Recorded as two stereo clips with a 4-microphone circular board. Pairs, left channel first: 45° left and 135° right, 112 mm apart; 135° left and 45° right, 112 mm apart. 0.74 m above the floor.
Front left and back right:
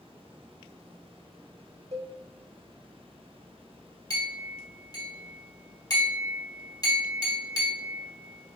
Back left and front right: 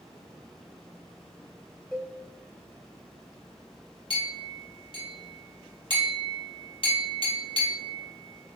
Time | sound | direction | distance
1.9 | a cowbell | 135° right | 0.9 m
4.1 | a clink | 100° left | 1.2 m